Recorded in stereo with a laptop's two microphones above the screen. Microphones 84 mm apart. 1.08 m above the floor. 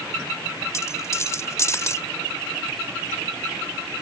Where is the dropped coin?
35° left (ahead or behind).